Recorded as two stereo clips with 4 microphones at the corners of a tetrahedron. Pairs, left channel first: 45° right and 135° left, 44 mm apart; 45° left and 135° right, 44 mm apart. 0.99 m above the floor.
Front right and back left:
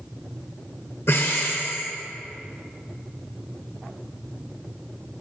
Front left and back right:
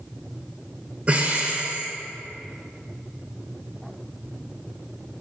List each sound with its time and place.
1.1 s breathing: 75° right, 1.4 m